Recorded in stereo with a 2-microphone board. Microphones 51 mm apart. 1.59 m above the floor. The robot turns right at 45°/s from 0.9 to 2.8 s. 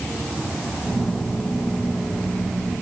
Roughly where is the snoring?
No snoring in this recording.